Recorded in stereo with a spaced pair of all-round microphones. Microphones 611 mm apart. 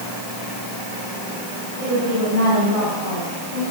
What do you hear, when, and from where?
1.8 s a woman speaking: 60° right (ahead or behind), 9.5 m